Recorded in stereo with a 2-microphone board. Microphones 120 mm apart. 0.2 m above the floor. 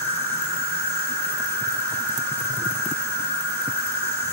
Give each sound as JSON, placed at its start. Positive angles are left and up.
{"t": 0.0, "sound": "an insect", "side_deg": 10, "distance_m": 1.5}